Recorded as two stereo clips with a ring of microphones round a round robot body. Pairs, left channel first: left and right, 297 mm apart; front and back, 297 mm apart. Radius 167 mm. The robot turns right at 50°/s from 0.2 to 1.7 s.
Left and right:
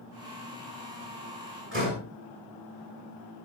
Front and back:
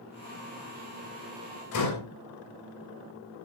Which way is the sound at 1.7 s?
35° right.